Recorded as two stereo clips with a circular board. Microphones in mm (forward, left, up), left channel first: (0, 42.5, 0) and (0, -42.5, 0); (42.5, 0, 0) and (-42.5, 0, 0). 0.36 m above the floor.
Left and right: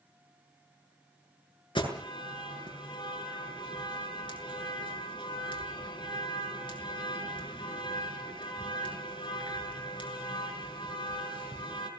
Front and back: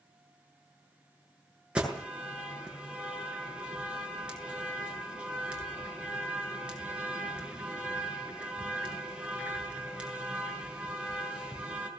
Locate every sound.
1.8 s an alarm: 100° left, 6.5 m